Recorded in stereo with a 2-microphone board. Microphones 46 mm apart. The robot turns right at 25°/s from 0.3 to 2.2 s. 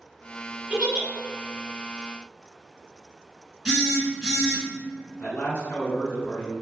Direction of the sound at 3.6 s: 10° right (ahead or behind).